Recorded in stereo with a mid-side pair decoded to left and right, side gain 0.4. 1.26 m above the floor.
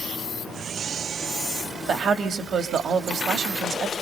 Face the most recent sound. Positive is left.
turn(degrees=-60)